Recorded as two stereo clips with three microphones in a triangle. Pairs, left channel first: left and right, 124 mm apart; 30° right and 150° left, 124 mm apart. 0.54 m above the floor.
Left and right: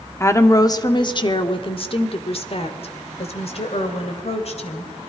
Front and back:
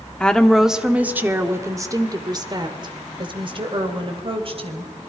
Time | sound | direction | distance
0.2 | a woman speaking | 45° left | 1.3 m